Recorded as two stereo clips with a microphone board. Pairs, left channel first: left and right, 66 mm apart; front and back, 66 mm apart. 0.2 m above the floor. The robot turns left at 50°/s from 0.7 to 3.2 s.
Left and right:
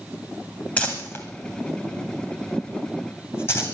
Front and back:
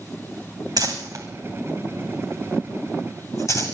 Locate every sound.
0.8 s crumpling: 160° left, 2.5 m; by 3.7 s 35° left, 2.5 m